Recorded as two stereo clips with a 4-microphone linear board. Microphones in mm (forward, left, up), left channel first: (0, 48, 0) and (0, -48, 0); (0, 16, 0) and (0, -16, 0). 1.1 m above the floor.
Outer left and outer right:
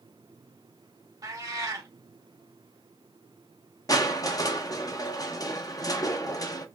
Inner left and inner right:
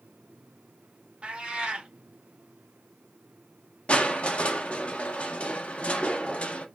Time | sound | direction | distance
1.2 | a cat meowing | 40° right (ahead or behind) | 0.9 m
3.9 | crushing | 40° left (ahead or behind) | 0.5 m